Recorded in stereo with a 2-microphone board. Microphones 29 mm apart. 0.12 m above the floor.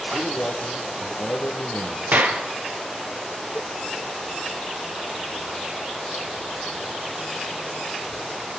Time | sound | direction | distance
0.1 | a man speaking | 65° left (ahead or behind) | 5 m
2.1 | a clap | 60° right (ahead or behind) | 2.5 m
3.5 | a cowbell | 65° right (ahead or behind) | 0.7 m